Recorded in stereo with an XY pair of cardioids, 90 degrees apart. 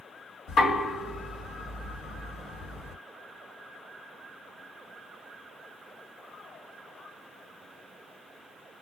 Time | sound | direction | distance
0.5 | knocking | 60° left | 1.8 m